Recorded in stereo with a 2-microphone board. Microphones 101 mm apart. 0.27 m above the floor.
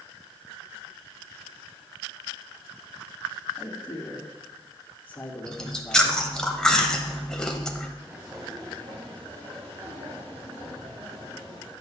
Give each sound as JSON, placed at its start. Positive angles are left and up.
{"t": 3.6, "sound": "a man speaking", "side_deg": 20, "distance_m": 1.9}
{"t": 5.5, "sound": "chewing", "side_deg": 5, "distance_m": 0.8}
{"t": 8.0, "sound": "footsteps", "side_deg": -20, "distance_m": 3.0}